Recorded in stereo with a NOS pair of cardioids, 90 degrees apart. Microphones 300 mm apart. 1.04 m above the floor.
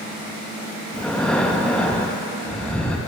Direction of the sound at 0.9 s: 5° left.